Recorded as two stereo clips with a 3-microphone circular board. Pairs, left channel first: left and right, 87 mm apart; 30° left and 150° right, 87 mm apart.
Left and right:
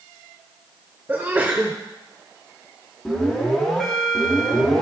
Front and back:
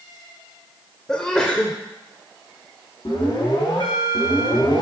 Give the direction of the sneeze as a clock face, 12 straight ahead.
1 o'clock.